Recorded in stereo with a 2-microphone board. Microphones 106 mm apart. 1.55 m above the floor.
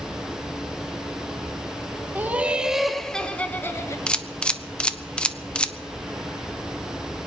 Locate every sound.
2.1 s laughter: 20° right (ahead or behind), 1.3 m; by 4.0 s 25° left (ahead or behind), 1.3 m
4.1 s a camera shutter: 10° left (ahead or behind), 0.7 m